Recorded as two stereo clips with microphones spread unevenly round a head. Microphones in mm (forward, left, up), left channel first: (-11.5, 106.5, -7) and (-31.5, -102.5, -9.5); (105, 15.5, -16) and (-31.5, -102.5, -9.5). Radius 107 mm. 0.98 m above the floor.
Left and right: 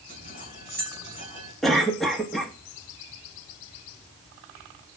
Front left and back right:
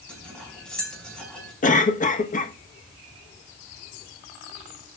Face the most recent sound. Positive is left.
turn(degrees=-5)